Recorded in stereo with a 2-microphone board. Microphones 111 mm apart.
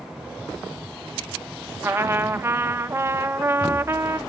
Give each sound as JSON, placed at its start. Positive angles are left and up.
{"t": 1.8, "sound": "a trumpet", "side_deg": -25, "distance_m": 0.5}